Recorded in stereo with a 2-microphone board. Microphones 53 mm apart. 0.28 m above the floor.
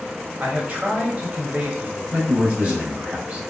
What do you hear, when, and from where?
0.4 s a man speaking: 30° right (ahead or behind), 0.9 m
2.1 s a man speaking: 25° right (ahead or behind), 1.4 m